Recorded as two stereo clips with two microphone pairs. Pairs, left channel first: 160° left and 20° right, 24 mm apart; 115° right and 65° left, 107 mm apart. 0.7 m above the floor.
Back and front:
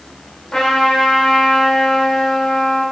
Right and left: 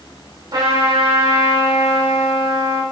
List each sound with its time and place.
0.5 s a trumpet: 110° left, 3 m